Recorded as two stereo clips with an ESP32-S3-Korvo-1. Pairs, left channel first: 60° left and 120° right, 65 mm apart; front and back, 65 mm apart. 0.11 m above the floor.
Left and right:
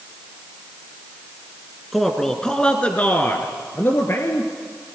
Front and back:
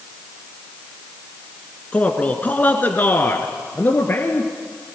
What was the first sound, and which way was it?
A man speaking, 30° right.